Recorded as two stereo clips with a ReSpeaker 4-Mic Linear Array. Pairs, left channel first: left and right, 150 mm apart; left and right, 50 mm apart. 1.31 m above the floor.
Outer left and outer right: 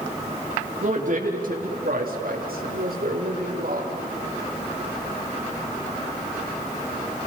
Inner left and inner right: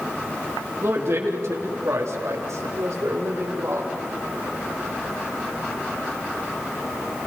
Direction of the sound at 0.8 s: 55° right (ahead or behind).